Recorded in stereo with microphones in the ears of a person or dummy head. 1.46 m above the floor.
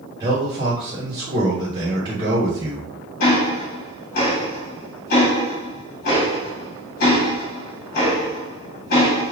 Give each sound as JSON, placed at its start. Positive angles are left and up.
{"t": 0.2, "sound": "a man speaking", "side_deg": -25, "distance_m": 1.3}
{"t": 3.2, "sound": "ticking", "side_deg": 45, "distance_m": 1.0}